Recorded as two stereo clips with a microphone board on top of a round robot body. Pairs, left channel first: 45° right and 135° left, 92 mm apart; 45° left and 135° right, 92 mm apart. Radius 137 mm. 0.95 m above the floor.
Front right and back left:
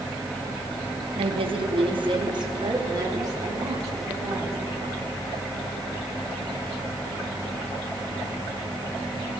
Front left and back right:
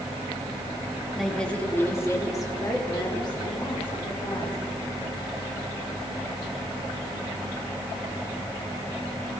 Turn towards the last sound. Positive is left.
turn(degrees=75)